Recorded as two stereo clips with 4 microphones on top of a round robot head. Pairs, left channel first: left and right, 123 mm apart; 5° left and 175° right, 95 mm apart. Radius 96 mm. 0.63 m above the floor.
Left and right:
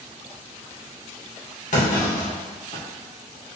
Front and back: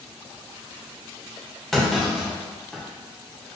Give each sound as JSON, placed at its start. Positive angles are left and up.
{"t": 1.7, "sound": "a clunk", "azimuth_deg": 90, "distance_m": 1.6}